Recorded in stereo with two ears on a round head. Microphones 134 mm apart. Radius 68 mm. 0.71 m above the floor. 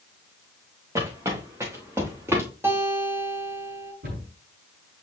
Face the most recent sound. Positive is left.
turn(degrees=-65)  # may be behind; listen again after turning